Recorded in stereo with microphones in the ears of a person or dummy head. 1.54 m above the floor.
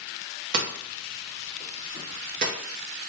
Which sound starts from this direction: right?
Hammering, at 0.5 s.